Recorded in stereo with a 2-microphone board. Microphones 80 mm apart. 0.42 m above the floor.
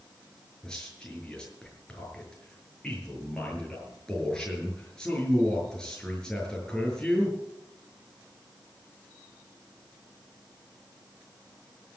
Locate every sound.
0.6 s a man speaking: 10° left (ahead or behind), 6 m